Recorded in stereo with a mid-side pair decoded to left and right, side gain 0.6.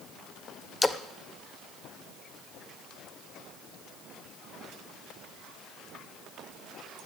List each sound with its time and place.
0.8 s a splash: 15° left, 1.1 m